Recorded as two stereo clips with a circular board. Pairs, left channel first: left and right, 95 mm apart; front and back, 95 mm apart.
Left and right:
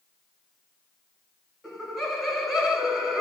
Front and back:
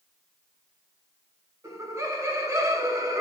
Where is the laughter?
Straight behind, 1.1 m.